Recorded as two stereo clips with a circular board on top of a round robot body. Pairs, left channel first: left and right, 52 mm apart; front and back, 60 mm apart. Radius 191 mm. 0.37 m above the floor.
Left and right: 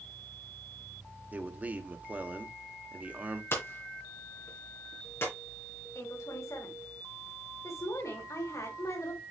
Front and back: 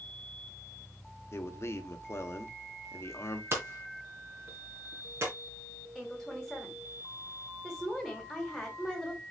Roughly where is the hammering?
Behind left.